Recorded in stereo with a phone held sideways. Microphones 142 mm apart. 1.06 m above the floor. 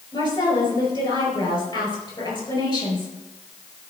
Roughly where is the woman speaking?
Left.